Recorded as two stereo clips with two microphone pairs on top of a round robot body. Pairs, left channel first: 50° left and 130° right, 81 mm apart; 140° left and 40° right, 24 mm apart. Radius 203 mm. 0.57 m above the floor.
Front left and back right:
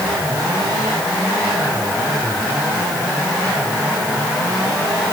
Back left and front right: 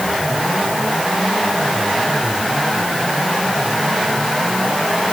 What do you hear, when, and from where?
Only background noise.